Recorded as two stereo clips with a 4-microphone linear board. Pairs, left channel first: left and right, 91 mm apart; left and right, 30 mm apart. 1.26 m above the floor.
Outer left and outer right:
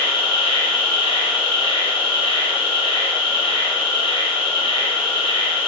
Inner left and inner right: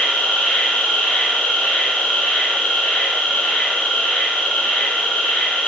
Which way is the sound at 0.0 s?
75° left (ahead or behind).